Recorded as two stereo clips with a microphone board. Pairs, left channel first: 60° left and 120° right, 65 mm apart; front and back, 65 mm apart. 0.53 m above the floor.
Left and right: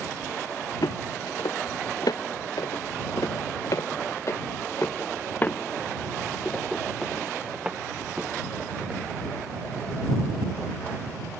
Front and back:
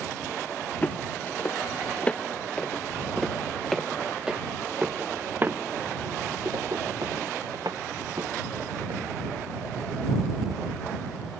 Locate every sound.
0.8 s footsteps: 65° left; by 9.0 s 175° left